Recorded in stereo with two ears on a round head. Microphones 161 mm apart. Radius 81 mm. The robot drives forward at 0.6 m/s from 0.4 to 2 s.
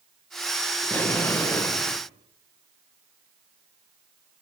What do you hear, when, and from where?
0.8 s an explosion: 10° left (ahead or behind), 1.7 m; by 2.0 s 15° left (ahead or behind), 1.0 m